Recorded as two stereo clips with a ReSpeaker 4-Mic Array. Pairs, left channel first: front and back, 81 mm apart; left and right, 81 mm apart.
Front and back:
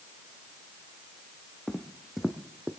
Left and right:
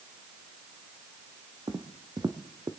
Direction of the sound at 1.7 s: 85° right.